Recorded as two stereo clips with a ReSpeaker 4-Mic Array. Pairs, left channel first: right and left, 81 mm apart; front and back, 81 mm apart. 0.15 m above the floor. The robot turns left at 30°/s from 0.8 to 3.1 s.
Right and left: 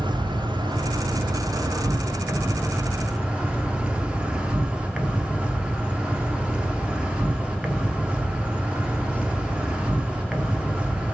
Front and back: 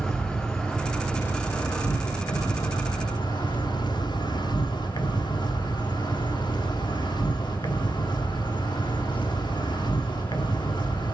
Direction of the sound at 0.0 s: 80° left.